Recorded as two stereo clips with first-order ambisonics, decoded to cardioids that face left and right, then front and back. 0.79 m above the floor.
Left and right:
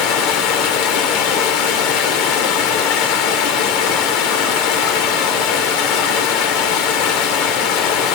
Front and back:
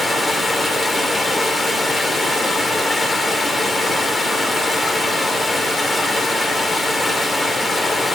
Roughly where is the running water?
Left.